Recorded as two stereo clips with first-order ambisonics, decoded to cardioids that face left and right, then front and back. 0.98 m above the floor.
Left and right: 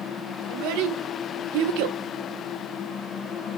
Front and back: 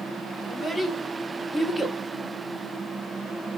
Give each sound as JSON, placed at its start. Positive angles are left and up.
{"t": 0.5, "sound": "a child speaking", "azimuth_deg": -85, "distance_m": 2.5}